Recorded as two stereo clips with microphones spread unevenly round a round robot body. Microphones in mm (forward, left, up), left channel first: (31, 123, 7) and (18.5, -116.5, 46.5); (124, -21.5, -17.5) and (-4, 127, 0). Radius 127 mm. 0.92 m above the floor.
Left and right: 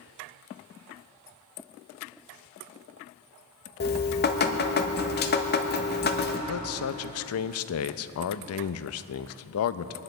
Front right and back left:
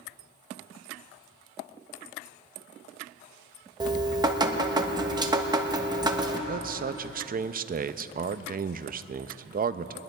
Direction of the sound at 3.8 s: 60° left.